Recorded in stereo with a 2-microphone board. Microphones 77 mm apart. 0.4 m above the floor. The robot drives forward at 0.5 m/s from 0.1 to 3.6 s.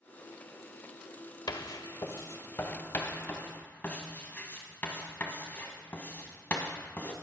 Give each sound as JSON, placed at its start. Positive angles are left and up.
{"t": 1.5, "sound": "writing", "side_deg": 60, "distance_m": 0.6}